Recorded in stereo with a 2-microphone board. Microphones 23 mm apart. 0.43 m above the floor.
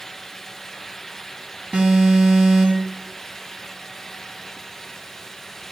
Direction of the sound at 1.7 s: 60° right (ahead or behind).